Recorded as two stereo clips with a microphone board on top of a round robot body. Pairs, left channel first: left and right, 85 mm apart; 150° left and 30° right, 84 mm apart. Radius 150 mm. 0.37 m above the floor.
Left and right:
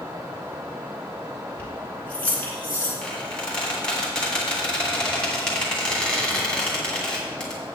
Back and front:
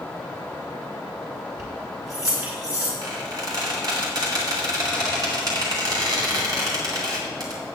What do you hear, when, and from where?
1.6 s keys jangling: 20° left, 3 m; by 2.9 s 25° left, 4.5 m
3.0 s a squeak: 10° left, 2.5 m